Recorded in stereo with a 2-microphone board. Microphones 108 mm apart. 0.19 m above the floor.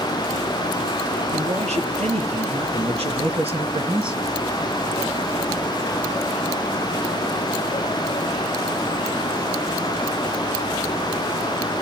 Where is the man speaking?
70° right (ahead or behind), 4.5 m; by 4.3 s 40° right (ahead or behind), 2.0 m.